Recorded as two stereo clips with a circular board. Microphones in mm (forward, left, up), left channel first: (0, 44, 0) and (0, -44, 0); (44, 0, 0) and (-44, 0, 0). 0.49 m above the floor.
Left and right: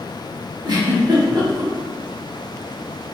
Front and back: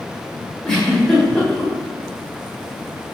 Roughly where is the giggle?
Right.